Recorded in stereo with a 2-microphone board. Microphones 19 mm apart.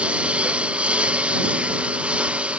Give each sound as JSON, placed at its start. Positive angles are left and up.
{"t": 0.0, "sound": "a lawn mower", "side_deg": -70}